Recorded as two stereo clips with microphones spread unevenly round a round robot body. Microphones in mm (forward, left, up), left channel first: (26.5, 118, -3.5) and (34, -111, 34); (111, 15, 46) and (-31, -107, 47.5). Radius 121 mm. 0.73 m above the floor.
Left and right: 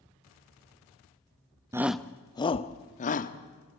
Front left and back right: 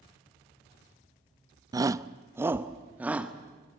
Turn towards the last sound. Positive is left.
turn(degrees=135)